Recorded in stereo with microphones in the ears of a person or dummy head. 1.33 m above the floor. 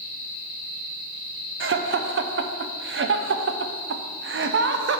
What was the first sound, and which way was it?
Laughter, 60° right (ahead or behind).